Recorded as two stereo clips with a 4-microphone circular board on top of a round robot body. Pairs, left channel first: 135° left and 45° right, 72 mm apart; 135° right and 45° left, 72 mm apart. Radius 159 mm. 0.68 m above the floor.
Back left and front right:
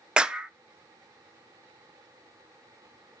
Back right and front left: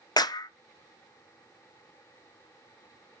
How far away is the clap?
About 0.9 m.